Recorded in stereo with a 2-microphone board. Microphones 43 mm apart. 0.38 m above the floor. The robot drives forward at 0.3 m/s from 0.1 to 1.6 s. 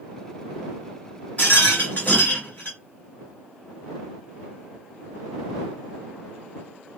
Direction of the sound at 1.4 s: 40° left (ahead or behind).